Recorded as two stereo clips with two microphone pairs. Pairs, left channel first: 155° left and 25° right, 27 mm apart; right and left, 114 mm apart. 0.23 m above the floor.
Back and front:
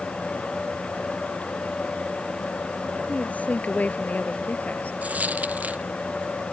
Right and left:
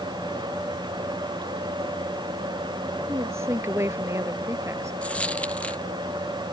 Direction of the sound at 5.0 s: 10° right.